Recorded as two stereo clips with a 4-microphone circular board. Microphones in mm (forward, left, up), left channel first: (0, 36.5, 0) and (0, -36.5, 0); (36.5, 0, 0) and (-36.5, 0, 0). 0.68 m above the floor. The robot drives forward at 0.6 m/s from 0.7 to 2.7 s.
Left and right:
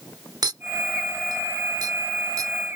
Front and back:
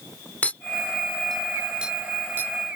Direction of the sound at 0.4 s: 70° right.